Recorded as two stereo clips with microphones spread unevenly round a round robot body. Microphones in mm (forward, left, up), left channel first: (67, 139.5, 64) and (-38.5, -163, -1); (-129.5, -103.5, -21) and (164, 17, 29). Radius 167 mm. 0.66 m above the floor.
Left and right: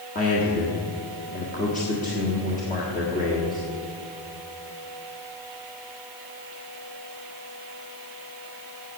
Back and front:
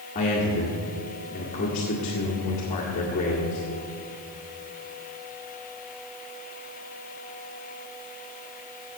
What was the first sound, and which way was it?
A man speaking, 140° left.